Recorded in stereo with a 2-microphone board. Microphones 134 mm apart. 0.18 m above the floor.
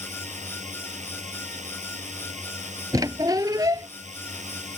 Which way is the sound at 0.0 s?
60° right (ahead or behind).